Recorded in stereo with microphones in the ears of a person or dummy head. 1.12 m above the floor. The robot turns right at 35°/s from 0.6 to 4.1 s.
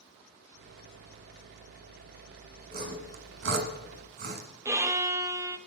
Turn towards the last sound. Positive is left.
turn(degrees=-15)  # may be behind; listen again after turning